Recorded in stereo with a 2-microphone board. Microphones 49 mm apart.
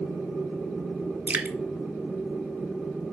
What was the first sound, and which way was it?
Dripping, 30° right (ahead or behind).